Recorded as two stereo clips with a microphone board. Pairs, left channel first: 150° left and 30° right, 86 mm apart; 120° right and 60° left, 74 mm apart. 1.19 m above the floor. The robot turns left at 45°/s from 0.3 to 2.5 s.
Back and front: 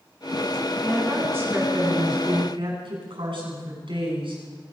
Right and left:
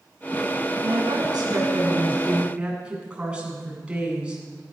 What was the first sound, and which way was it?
A woman speaking, 60° left.